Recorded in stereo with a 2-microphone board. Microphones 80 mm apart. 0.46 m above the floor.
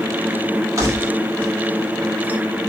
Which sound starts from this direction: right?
Keys jangling, at 0.8 s.